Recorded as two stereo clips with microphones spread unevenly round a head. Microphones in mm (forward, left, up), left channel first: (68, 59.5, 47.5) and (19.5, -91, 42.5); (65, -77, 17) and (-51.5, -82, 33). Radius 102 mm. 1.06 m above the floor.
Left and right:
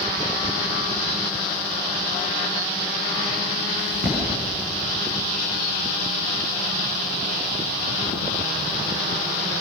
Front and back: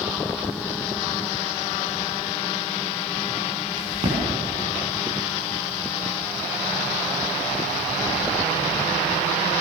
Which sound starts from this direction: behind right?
A crack, at 3.8 s.